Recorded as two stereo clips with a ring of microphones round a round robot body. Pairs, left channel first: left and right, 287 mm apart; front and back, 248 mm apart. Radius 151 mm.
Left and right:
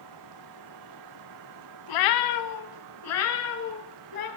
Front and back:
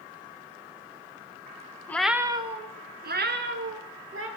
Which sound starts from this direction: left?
A cat meowing, at 1.9 s.